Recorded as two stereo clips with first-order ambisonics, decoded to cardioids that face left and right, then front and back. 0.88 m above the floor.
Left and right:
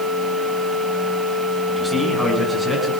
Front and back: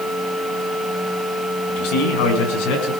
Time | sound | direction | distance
1.7 | a man speaking | straight ahead | 6.5 m